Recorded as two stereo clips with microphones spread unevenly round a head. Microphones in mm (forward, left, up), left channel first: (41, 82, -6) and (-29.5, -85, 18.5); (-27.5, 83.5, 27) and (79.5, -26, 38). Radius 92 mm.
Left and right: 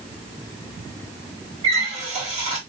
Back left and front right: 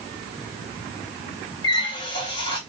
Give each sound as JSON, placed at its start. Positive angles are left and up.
{"t": 1.6, "sound": "a running tap", "azimuth_deg": -160, "distance_m": 1.6}